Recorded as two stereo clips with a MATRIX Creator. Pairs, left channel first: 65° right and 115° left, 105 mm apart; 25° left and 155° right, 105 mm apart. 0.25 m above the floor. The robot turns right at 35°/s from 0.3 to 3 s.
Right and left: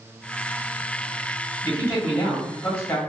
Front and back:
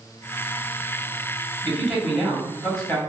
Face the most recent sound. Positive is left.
turn(degrees=-30)